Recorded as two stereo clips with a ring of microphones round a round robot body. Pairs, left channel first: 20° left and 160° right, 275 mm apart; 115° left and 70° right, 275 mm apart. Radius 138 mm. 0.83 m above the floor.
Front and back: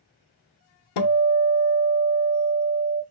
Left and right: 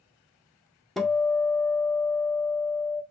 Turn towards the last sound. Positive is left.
turn(degrees=25)